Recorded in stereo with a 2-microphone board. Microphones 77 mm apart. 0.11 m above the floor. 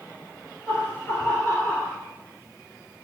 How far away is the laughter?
About 1.5 m.